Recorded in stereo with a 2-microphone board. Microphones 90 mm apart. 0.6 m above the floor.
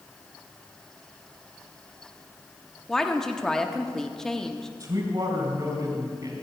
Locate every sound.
2.9 s a woman speaking: 5° left (ahead or behind), 0.9 m
4.8 s a man speaking: 45° right (ahead or behind), 3.5 m